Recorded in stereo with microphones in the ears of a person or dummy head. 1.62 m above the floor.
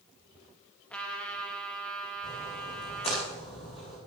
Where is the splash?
35° left (ahead or behind), 9.5 m.